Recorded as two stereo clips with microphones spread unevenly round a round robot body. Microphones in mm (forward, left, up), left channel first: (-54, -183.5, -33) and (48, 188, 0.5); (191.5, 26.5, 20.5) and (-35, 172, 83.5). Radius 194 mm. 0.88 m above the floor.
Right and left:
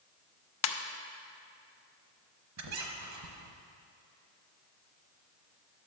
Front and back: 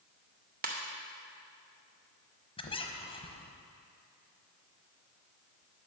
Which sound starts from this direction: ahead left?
A squeak, at 2.6 s.